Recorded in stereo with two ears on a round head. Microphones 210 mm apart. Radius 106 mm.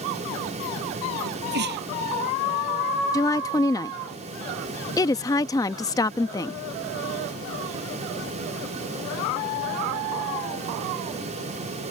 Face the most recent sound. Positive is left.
turn(degrees=15)  # may be behind; listen again after turning